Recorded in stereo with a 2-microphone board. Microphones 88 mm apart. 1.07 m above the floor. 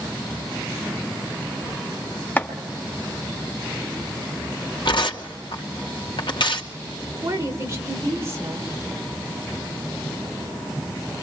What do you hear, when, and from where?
2.4 s chopping: 20° left (ahead or behind), 1.5 m
4.8 s tearing paper: 65° left (ahead or behind), 2.5 m
7.2 s a woman speaking: 35° right (ahead or behind), 4.5 m